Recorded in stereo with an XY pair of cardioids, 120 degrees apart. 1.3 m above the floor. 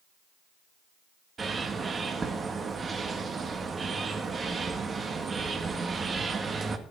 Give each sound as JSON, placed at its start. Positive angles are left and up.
{"t": 1.4, "sound": "a bird", "azimuth_deg": -30, "distance_m": 1.9}